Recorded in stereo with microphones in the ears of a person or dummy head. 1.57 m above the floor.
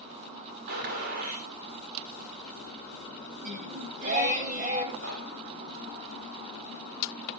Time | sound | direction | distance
0.7 | a gunshot | 50° right (ahead or behind) | 2.5 m
3.4 | singing | 40° right (ahead or behind) | 3 m
5.0 | knocking | 75° right (ahead or behind) | 6.5 m